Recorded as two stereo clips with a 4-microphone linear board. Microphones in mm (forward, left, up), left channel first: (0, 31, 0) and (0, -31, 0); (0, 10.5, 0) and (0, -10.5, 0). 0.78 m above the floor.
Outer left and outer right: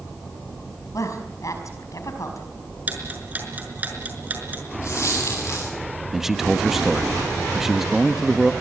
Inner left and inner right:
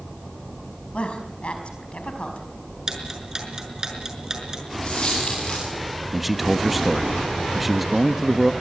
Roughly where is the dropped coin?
Left.